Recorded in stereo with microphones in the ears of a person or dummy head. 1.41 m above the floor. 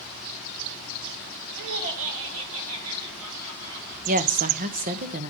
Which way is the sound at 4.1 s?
40° right (ahead or behind).